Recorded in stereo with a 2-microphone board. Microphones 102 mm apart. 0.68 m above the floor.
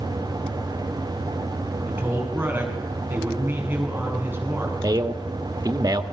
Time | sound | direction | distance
1.9 | a man speaking | 15° right (ahead or behind) | 8.5 m
4.8 | a man speaking | 45° right (ahead or behind) | 1.6 m